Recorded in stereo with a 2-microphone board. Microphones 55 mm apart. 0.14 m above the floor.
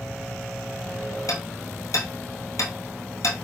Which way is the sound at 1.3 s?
70° left (ahead or behind).